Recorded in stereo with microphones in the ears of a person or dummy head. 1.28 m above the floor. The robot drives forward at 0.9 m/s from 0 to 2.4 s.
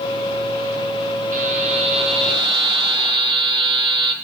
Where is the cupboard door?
No cupboard door in this recording.